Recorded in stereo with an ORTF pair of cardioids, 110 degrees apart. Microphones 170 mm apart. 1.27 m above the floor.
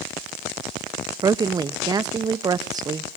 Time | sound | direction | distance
1.2 | a woman speaking | 25° right | 0.5 m